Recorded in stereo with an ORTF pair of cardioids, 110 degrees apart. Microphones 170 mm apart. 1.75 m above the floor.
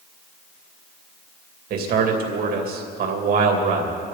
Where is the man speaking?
65° right, 3 m.